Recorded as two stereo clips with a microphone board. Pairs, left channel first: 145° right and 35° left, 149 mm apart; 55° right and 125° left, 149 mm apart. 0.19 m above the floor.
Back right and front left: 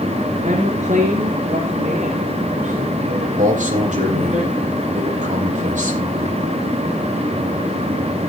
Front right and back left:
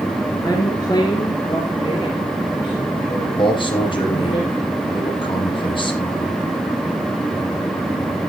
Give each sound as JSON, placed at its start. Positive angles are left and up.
{"t": 0.4, "sound": "a woman speaking", "azimuth_deg": 10, "distance_m": 3.0}
{"t": 3.4, "sound": "a man speaking", "azimuth_deg": 0, "distance_m": 6.0}